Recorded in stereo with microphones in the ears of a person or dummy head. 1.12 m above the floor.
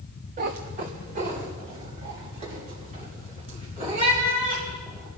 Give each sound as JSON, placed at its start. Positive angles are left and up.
{"t": 0.4, "sound": "a cat meowing", "side_deg": -25, "distance_m": 0.7}